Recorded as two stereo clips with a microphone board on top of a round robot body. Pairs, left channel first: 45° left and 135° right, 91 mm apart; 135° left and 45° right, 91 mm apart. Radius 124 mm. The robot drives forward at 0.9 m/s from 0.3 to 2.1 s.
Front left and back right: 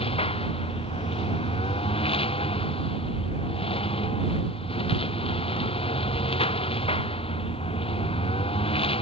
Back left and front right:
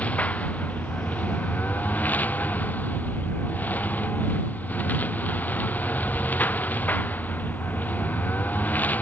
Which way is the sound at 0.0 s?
60° left.